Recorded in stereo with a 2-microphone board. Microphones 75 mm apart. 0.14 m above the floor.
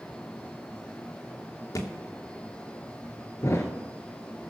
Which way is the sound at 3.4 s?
45° left (ahead or behind).